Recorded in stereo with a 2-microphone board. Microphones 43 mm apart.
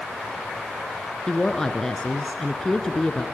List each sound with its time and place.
1.3 s a woman speaking: 10° left (ahead or behind), 1.6 m